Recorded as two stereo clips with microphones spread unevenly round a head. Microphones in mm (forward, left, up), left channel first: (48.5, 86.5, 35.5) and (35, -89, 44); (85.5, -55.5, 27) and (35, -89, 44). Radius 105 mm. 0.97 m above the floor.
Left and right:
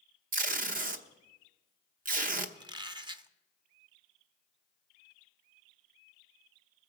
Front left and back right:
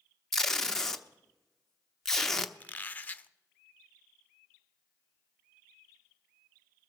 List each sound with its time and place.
0.3 s tape being pulled: 55° right, 0.9 m
2.6 s a squeak: 30° right, 0.7 m